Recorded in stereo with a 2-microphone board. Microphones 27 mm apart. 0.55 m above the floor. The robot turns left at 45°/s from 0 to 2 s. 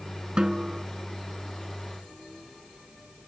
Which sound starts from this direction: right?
A snare drum, at 0.4 s.